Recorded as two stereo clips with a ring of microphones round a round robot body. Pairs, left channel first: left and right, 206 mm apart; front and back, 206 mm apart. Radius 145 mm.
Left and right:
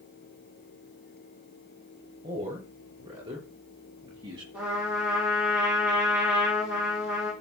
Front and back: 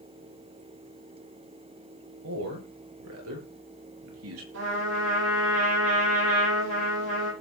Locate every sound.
2.2 s a man speaking: 160° right, 6.5 m; by 4.4 s 165° right, 5 m
4.5 s a trumpet: 175° right, 9.5 m